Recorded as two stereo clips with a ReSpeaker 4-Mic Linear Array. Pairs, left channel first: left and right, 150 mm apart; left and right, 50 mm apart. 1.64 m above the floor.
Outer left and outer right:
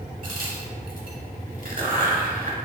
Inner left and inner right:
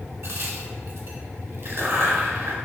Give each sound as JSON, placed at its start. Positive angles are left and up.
{"t": 0.2, "sound": "a crack", "side_deg": -65, "distance_m": 0.9}